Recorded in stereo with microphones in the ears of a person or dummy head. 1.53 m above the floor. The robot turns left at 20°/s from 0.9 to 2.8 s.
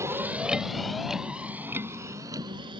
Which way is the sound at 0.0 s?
15° right (ahead or behind).